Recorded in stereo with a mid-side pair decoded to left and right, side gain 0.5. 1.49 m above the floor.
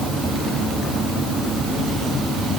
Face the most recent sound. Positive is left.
No sound to turn to.